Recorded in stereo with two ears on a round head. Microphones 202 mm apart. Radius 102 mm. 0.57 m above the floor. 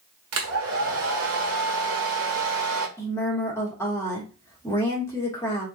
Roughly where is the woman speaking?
Centre.